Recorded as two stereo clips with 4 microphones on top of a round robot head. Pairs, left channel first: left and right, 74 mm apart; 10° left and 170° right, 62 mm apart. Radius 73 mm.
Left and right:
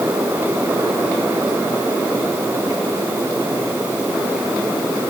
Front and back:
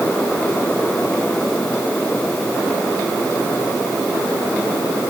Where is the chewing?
No chewing in this recording.